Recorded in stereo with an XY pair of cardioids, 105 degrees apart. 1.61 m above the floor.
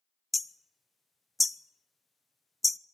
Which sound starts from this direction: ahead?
Hammering, at 0.3 s.